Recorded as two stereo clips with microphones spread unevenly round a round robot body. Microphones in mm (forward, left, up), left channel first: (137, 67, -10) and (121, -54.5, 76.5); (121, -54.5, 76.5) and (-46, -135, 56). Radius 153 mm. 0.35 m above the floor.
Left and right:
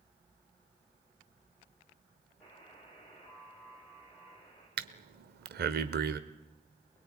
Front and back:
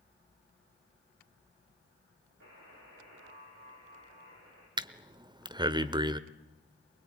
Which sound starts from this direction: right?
Breathing, at 4.8 s.